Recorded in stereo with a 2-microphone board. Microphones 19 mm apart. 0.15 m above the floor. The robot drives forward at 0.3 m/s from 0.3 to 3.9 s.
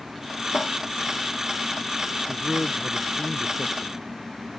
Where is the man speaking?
55° left (ahead or behind); by 4.2 s 50° left (ahead or behind).